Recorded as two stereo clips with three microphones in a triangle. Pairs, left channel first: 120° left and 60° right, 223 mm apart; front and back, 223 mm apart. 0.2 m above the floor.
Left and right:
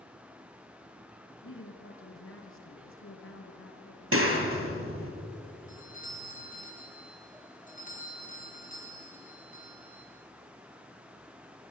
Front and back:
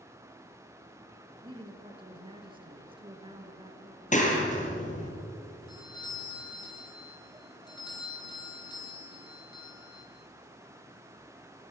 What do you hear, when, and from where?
1.4 s a woman speaking: 115° left, 3.5 m
4.1 s a clap: 55° right, 3.5 m
5.7 s a doorbell: 70° left, 5 m